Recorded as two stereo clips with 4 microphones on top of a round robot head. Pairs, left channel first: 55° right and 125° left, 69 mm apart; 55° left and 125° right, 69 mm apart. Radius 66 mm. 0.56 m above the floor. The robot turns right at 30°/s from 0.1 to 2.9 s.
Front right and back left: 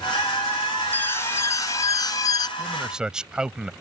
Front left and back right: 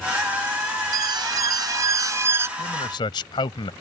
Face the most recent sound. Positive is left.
turn(degrees=45)